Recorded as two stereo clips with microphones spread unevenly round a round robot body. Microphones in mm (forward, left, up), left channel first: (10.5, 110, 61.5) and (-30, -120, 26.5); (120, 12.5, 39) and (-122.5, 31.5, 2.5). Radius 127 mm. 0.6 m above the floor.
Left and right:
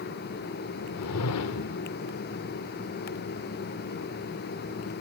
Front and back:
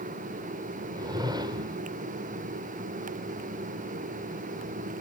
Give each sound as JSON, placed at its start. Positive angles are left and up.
{"t": 0.9, "sound": "a whoosh", "azimuth_deg": 100, "distance_m": 1.1}